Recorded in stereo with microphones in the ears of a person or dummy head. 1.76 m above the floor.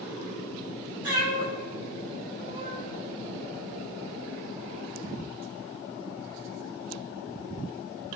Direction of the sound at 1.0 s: 50° right (ahead or behind).